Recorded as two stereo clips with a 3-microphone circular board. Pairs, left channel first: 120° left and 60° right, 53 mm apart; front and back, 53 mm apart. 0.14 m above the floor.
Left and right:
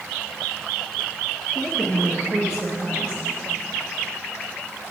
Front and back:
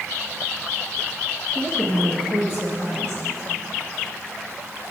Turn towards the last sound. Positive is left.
turn(degrees=-5)